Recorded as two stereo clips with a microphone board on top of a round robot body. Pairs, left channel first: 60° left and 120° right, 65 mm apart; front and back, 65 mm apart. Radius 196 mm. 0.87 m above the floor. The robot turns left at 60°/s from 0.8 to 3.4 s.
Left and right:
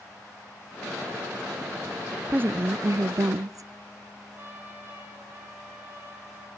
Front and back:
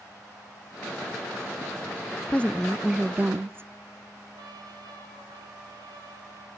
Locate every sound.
2.3 s a woman speaking: 60° right, 0.5 m; by 3.7 s 130° right, 0.5 m
4.3 s a trumpet: 175° right, 5 m